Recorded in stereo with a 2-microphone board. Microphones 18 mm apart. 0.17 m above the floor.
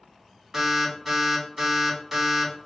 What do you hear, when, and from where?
0.5 s an alarm: 15° right (ahead or behind), 1.2 m